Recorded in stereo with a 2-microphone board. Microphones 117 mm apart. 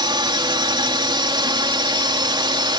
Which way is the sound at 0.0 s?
40° right (ahead or behind).